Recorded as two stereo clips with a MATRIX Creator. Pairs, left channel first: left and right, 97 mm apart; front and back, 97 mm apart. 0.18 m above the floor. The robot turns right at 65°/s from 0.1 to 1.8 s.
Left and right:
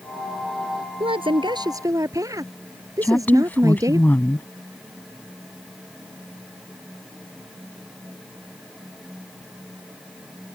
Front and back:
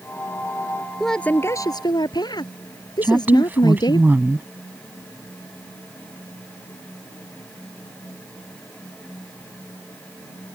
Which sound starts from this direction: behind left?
A woman speaking, at 3.0 s.